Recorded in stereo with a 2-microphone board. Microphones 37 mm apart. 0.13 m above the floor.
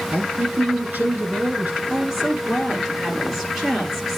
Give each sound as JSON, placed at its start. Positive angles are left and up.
{"t": 0.1, "sound": "a man speaking", "side_deg": -50, "distance_m": 5.5}
{"t": 1.9, "sound": "a woman speaking", "side_deg": -5, "distance_m": 3.0}